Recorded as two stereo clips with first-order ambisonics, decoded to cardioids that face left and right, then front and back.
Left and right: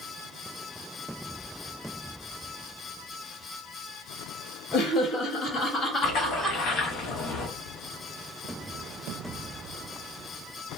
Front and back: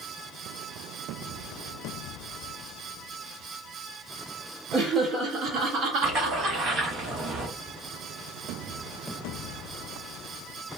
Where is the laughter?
115° left, 1.2 m; by 6.6 s 175° left, 1.2 m.